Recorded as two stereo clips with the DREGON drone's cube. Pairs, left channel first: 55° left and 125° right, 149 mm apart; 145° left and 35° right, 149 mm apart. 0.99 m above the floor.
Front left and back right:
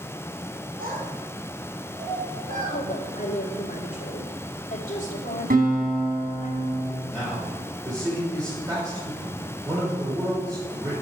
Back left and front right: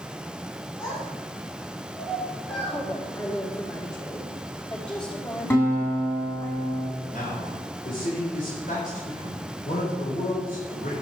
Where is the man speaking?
175° left, 3.5 m.